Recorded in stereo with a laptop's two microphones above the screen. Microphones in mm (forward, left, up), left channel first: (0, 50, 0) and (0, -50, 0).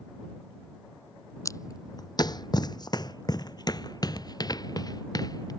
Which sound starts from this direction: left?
Footsteps, at 1.4 s.